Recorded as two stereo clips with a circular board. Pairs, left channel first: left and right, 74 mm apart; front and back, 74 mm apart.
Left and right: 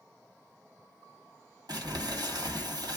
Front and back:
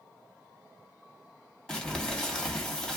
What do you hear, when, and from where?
1.7 s crumpling: 80° right, 1.6 m